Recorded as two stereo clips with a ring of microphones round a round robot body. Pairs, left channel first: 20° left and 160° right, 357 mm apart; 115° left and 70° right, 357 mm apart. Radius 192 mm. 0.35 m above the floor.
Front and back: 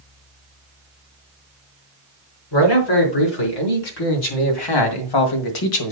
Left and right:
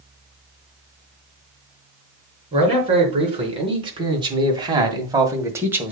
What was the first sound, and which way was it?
A man speaking, 5° left.